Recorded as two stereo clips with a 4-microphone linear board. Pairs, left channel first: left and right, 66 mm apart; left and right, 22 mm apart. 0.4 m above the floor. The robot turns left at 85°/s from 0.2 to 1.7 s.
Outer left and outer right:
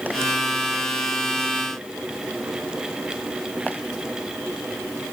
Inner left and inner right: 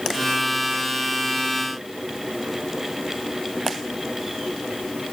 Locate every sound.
Only background noise.